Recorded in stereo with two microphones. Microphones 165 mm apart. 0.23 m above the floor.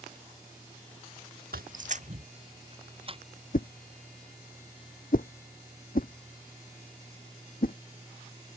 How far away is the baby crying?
No baby crying in this recording.